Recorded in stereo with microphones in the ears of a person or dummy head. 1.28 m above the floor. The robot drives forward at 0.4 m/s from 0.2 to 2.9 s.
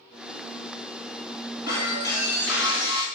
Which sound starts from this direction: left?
Breaking glass, at 1.7 s.